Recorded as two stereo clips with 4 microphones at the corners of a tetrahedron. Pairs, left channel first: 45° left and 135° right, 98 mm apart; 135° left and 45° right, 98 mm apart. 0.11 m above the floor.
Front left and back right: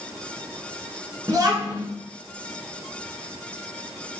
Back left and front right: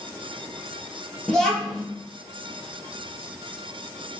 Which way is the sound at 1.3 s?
145° right.